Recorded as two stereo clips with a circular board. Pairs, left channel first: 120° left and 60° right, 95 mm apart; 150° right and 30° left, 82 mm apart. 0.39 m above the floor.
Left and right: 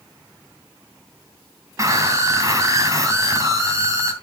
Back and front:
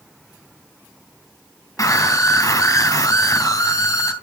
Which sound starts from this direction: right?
A scream, at 1.8 s.